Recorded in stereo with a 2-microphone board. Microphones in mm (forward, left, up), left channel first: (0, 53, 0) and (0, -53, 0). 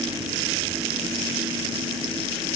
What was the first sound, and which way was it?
Only background noise.